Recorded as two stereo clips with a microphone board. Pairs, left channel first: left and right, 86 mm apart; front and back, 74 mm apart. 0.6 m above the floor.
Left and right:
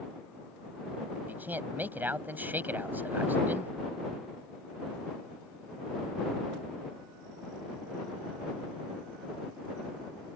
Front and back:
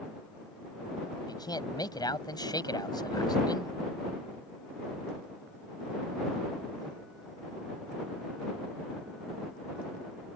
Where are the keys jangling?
No keys jangling in this recording.